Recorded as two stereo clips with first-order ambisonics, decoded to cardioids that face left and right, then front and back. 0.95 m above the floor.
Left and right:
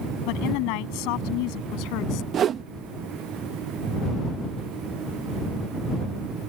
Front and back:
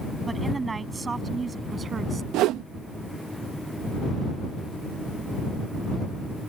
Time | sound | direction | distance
0.3 | a woman speaking | 100° left | ?
2.3 | a whoosh | 145° right | ?